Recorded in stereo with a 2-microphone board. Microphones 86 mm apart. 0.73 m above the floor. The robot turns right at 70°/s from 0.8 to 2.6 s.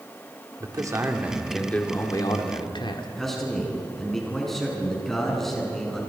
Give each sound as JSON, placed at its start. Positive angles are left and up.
{"t": 0.6, "sound": "a man speaking", "azimuth_deg": -50, "distance_m": 2.5}
{"t": 3.2, "sound": "a man speaking", "side_deg": 5, "distance_m": 7.0}